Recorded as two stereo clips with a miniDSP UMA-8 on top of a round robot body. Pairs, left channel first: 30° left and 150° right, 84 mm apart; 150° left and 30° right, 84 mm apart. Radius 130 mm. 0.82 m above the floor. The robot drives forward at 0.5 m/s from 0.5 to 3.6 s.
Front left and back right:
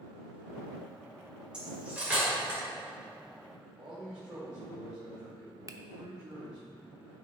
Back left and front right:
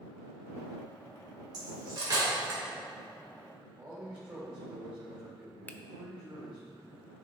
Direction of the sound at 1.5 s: 70° right.